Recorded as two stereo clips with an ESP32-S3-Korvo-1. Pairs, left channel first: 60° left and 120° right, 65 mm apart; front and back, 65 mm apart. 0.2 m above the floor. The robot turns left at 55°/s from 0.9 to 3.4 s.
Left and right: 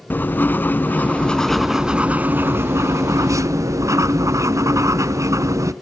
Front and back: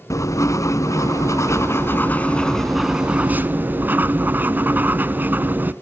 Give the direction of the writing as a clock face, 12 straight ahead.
12 o'clock.